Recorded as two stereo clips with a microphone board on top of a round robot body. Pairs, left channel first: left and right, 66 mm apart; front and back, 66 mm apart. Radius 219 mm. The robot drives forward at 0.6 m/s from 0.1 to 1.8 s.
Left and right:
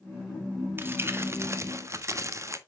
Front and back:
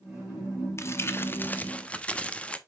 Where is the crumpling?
40° right, 1.5 m; by 2.6 s 70° right, 1.2 m.